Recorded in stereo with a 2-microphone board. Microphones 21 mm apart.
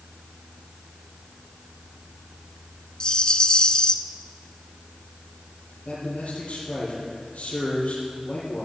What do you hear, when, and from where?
3.0 s a rattle: 35° left (ahead or behind), 0.7 m
5.8 s a man speaking: 60° left (ahead or behind), 5.5 m